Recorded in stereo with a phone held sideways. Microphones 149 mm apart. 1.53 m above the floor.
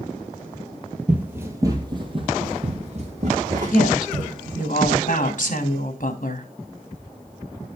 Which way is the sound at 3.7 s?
60° left (ahead or behind).